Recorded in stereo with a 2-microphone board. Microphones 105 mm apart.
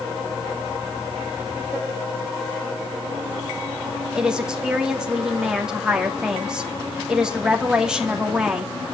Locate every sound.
4.2 s a woman speaking: 5° right (ahead or behind), 2.5 m